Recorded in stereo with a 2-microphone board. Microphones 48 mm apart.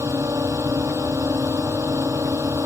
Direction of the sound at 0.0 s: 80° right.